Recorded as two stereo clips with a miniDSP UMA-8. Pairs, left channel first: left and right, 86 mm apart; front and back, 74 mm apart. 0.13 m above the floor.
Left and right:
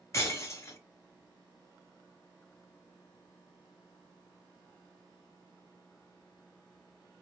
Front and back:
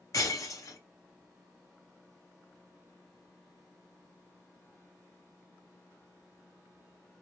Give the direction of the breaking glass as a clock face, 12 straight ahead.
11 o'clock.